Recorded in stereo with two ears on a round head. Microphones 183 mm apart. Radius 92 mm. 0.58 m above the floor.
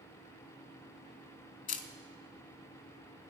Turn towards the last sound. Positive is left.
turn(degrees=40)  # may be behind; listen again after turning